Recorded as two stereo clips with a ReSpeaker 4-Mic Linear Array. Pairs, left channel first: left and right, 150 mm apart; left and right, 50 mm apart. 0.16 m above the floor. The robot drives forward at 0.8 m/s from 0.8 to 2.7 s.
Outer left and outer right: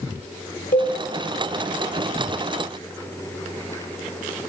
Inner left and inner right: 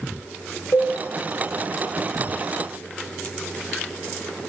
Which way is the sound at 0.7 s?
65° left (ahead or behind).